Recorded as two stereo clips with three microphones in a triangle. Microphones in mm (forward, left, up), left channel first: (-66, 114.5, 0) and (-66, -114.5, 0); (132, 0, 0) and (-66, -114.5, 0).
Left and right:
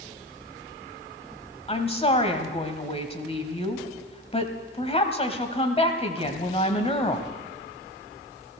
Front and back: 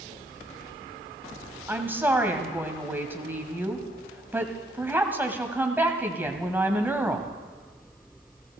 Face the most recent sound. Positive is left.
turn(degrees=135)